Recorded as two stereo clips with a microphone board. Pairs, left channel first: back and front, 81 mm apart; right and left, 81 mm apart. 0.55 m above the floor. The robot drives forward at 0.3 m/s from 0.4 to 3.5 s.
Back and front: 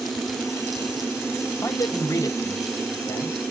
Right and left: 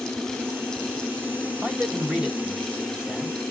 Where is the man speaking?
155° left, 0.9 m; by 3.4 s 165° left, 1.3 m.